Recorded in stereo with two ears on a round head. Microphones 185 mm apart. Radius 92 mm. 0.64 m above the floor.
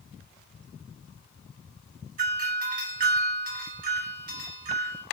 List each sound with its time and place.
2.2 s a doorbell: 45° right (ahead or behind), 1.4 m